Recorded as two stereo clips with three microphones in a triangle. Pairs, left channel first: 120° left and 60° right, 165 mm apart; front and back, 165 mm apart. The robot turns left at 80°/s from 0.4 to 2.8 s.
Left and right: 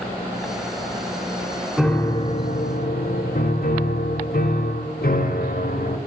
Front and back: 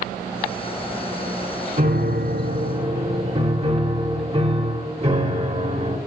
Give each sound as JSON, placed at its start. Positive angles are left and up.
{"t": 1.8, "sound": "a piano", "azimuth_deg": -150, "distance_m": 1.0}